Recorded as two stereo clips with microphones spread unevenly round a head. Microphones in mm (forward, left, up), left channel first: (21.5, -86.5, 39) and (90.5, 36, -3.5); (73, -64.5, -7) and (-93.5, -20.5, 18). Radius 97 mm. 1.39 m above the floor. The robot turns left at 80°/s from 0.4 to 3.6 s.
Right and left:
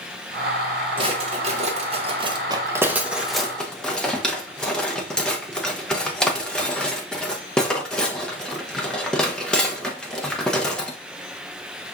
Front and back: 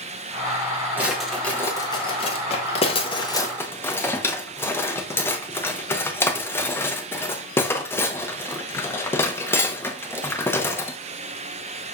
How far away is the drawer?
About 0.7 m.